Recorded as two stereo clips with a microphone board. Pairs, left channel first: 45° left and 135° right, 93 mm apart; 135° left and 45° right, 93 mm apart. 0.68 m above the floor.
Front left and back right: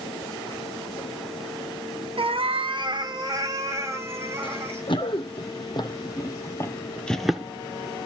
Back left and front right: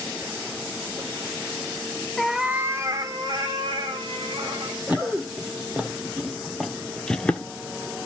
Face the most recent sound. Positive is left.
turn(degrees=175)